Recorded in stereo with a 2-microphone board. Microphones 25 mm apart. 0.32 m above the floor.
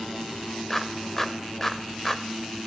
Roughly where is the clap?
Centre.